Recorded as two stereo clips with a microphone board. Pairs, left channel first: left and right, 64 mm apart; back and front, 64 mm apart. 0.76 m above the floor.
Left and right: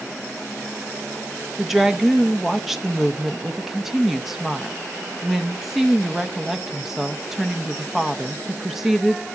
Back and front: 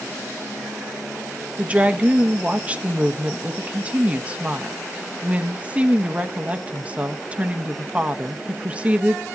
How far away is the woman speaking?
About 0.8 m.